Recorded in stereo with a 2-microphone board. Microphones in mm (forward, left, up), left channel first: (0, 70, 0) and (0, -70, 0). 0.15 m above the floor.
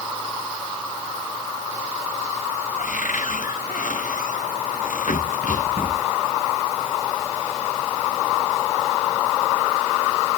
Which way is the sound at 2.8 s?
80° left.